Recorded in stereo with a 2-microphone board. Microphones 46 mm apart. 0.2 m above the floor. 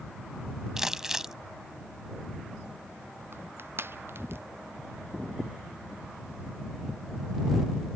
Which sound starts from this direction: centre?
Crumpling, at 0.8 s.